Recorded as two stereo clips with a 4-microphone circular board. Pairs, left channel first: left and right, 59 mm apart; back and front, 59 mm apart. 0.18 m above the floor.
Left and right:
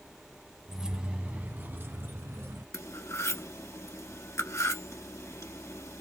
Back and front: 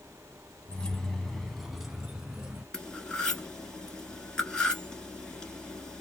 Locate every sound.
0.7 s keys jangling: 155° right, 0.7 m; by 2.6 s 75° right, 1.3 m
2.7 s cutlery clinking: 110° left, 1.4 m